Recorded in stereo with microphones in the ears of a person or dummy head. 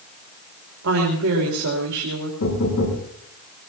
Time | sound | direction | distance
0.8 | a woman speaking | 80° right | 3 m
2.4 | knocking | 85° left | 9 m